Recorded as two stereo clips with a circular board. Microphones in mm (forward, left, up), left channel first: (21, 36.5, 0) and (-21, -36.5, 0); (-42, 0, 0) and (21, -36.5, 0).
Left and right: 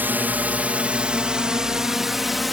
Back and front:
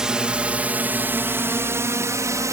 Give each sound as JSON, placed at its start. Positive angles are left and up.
{"t": 0.0, "sound": "a drone", "azimuth_deg": -95}